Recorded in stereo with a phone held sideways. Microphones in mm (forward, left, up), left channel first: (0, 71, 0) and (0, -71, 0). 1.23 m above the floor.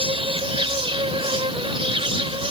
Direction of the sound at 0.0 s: 40° right (ahead or behind).